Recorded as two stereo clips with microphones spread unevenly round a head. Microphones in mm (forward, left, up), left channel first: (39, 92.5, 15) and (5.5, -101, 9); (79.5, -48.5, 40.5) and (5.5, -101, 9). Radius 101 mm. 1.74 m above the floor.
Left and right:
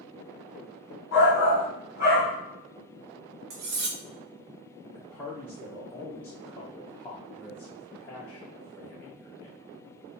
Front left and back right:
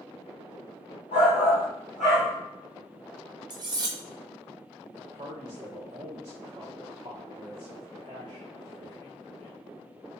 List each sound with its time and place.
1.1 s a shout: 50° left, 1.0 m; by 2.3 s 30° left, 1.6 m
3.5 s cutlery clinking: 100° right, 1.1 m
5.0 s a man speaking: 155° left, 0.6 m